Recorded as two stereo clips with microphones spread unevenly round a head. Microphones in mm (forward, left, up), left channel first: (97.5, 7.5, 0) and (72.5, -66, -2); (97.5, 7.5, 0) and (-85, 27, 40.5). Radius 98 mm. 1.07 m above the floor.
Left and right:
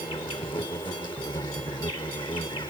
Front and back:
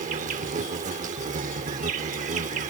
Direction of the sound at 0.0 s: 130° left.